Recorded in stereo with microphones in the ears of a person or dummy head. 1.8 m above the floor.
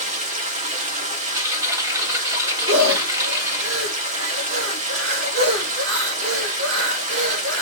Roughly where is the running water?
Right.